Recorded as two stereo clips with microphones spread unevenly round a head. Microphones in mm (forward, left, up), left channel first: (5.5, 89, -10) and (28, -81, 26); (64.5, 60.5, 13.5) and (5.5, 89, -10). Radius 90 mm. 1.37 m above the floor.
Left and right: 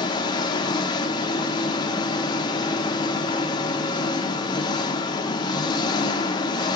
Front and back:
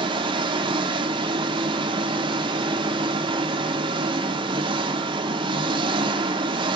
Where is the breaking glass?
No breaking glass in this recording.